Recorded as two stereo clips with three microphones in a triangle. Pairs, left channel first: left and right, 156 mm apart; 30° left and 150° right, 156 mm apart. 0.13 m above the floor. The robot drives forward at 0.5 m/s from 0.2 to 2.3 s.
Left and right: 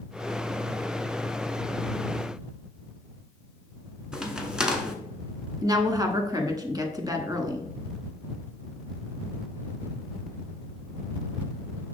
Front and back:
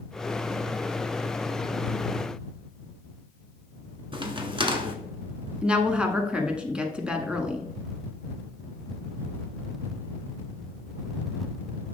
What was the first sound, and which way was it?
A crack, 170° right.